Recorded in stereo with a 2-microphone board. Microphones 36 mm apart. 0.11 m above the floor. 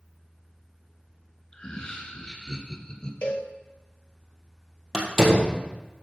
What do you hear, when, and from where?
1.5 s laughter: 25° left (ahead or behind), 1.2 m; by 3.1 s 20° left (ahead or behind), 1.6 m
3.2 s a cowbell: 45° left (ahead or behind), 1.5 m
4.9 s a door slam: 10° right (ahead or behind), 2 m